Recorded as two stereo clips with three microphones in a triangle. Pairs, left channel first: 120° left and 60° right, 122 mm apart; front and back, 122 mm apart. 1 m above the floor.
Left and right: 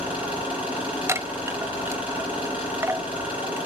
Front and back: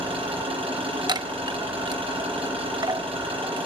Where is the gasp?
I don't hear a gasp.